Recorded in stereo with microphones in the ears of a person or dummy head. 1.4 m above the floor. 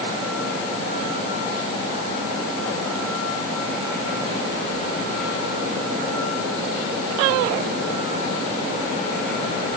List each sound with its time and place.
Only background noise.